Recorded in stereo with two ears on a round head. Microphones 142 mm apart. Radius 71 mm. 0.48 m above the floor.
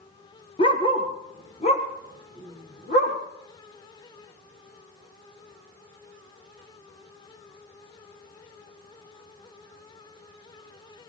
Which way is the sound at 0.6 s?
30° left (ahead or behind).